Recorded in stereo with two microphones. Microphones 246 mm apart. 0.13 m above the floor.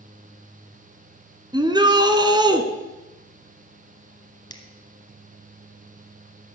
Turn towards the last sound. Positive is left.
turn(degrees=15)  # may be behind; listen again after turning